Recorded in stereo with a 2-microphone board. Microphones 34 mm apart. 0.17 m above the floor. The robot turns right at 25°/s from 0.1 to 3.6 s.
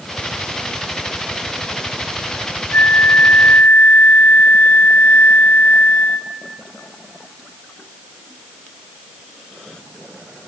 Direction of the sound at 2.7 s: 70° left (ahead or behind).